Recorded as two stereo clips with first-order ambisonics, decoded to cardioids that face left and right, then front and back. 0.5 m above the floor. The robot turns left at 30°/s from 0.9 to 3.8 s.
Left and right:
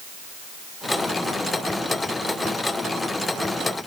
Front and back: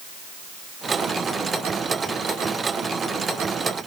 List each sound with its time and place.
Only background noise.